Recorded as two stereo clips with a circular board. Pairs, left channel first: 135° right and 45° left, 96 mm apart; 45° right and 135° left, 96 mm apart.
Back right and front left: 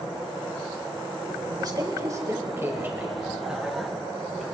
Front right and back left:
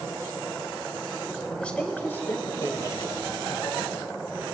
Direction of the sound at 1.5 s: 30° left.